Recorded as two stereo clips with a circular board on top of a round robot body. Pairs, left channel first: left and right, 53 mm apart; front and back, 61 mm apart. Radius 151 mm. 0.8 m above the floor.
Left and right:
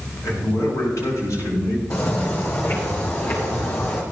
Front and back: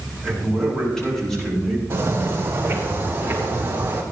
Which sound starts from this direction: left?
A man speaking, at 0.2 s.